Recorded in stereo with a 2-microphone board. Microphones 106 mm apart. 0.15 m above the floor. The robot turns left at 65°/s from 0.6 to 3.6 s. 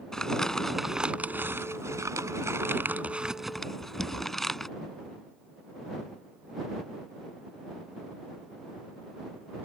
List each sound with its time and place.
0.1 s crumpling: 5° left (ahead or behind)